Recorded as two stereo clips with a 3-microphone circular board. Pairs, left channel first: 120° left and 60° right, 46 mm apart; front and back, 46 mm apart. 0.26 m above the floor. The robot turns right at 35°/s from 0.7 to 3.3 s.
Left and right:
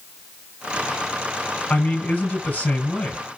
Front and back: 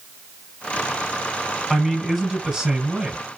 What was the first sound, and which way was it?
A man speaking, 85° left.